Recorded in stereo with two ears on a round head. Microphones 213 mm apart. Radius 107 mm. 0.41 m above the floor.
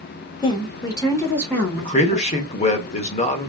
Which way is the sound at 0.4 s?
20° left (ahead or behind).